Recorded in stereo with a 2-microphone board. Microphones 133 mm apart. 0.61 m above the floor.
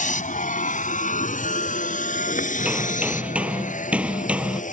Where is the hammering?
10° right (ahead or behind).